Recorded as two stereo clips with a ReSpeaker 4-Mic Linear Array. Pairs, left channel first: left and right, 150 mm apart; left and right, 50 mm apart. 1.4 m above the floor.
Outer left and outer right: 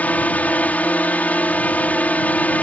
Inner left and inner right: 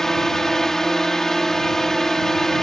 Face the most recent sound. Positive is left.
turn(degrees=10)  # may be behind; listen again after turning